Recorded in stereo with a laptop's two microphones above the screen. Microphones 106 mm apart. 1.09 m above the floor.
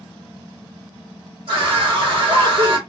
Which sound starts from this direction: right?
A scream, at 1.5 s.